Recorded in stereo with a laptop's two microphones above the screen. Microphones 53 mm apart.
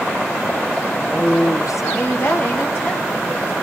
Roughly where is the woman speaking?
Centre.